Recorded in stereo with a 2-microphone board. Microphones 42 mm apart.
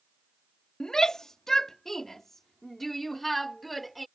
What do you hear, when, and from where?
0.8 s a shout: 20° left (ahead or behind); by 4.1 s 5° left (ahead or behind)